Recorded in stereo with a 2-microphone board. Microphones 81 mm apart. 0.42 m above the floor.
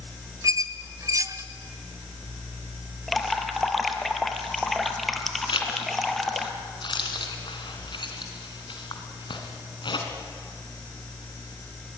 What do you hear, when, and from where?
0.4 s a squeak: 40° right (ahead or behind), 0.8 m
3.1 s dripping: centre (ahead or behind), 1.6 m
5.5 s a zipper: 75° left (ahead or behind), 2.5 m